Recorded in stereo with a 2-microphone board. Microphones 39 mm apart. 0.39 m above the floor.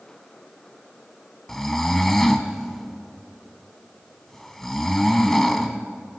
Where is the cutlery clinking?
I don't hear cutlery clinking.